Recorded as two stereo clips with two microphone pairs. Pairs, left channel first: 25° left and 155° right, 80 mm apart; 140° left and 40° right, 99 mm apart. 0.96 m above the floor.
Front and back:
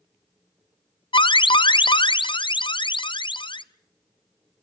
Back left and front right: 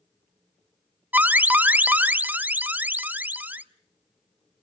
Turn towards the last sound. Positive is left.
turn(degrees=35)